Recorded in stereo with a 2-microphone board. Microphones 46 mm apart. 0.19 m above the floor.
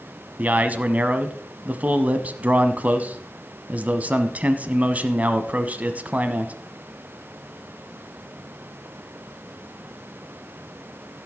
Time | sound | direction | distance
0.4 | a man speaking | 35° right (ahead or behind) | 1.1 m